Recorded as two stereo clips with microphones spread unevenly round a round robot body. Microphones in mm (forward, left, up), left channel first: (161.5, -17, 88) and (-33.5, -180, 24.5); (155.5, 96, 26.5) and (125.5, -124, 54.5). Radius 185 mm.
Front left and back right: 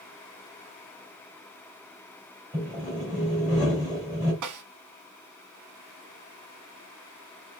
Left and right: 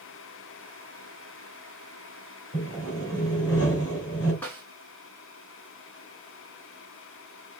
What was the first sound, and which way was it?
Sawing, 135° left.